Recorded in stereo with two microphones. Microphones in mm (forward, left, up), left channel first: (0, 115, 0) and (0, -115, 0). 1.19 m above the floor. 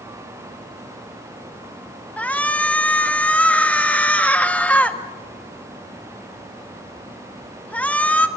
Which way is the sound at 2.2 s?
5° left (ahead or behind).